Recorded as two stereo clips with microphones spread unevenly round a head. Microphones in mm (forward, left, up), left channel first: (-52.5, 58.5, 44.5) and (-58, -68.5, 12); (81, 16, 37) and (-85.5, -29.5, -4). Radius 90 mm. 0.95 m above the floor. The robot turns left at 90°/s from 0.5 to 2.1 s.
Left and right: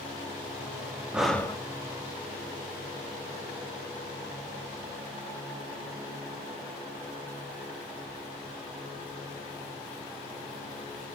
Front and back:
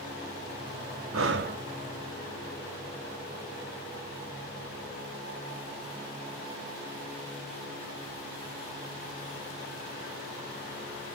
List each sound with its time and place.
1.1 s breathing: straight behind, 0.7 m; by 1.6 s 145° left, 0.7 m